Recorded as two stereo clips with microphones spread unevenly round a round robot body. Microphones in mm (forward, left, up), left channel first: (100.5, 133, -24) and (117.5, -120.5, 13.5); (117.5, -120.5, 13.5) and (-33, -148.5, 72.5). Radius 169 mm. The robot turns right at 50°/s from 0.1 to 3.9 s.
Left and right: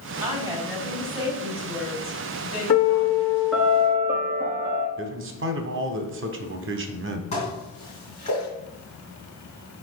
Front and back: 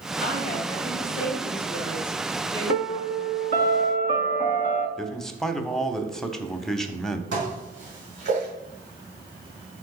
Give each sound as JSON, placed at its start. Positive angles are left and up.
{"t": 0.2, "sound": "a woman speaking", "azimuth_deg": -25, "distance_m": 3.5}
{"t": 2.7, "sound": "a piano", "azimuth_deg": 145, "distance_m": 0.8}
{"t": 5.0, "sound": "a man speaking", "azimuth_deg": -55, "distance_m": 0.9}
{"t": 7.3, "sound": "dishes clattering", "azimuth_deg": 165, "distance_m": 1.9}